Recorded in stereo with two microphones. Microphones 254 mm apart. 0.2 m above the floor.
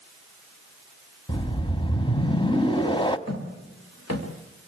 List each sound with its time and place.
1.3 s a whoosh: 20° left (ahead or behind), 0.7 m
3.3 s footsteps: 90° left, 3.5 m